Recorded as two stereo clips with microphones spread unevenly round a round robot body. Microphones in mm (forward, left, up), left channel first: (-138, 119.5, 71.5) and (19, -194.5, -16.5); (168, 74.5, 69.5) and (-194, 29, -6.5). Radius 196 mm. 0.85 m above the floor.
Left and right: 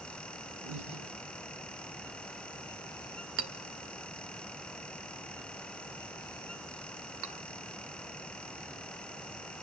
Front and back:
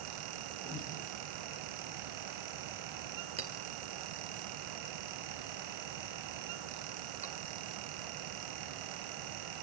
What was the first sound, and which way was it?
Breathing, 55° right.